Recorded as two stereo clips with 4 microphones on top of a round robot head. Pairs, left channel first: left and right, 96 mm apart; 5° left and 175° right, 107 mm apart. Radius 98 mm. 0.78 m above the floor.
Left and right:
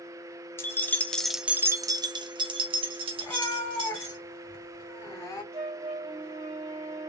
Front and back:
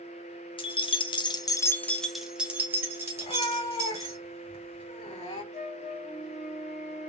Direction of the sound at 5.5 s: 85° right.